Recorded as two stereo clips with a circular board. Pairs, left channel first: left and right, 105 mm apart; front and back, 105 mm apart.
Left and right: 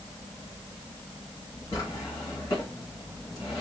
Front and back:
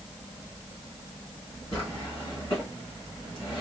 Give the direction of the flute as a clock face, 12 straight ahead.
No flute in this recording.